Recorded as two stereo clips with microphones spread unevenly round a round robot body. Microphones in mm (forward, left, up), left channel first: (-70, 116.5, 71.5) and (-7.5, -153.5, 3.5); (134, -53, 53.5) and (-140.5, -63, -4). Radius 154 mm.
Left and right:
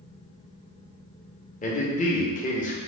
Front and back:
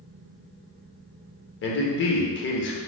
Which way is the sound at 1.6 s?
35° left.